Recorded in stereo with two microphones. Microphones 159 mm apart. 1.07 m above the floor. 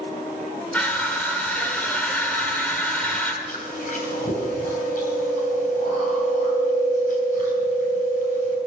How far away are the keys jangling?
I don't hear keys jangling.